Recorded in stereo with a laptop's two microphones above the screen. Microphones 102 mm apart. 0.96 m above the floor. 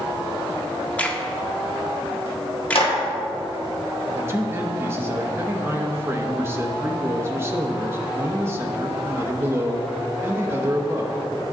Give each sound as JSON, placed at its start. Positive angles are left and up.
{"t": 1.0, "sound": "a crack", "side_deg": 15, "distance_m": 0.6}
{"t": 2.8, "sound": "a clap", "side_deg": 65, "distance_m": 1.4}
{"t": 4.1, "sound": "a man speaking", "side_deg": -25, "distance_m": 0.7}